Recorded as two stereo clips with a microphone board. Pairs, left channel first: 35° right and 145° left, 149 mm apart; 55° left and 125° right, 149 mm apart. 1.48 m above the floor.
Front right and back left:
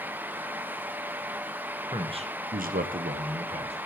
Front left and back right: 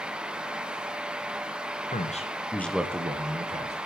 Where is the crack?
No crack in this recording.